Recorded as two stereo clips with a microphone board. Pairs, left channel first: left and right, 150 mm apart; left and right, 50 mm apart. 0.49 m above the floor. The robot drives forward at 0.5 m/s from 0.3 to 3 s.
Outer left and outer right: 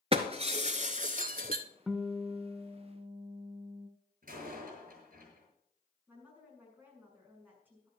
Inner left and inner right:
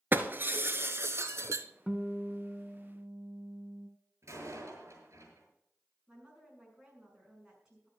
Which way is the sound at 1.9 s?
5° right (ahead or behind).